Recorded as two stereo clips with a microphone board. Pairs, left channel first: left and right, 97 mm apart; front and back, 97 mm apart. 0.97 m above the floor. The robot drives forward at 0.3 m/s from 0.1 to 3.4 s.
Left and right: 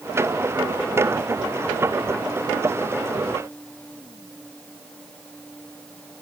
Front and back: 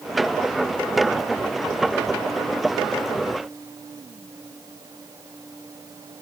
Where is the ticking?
I don't hear ticking.